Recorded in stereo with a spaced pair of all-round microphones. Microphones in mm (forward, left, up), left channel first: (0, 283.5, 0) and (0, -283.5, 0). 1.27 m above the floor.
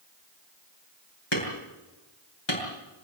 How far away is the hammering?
About 7.5 m.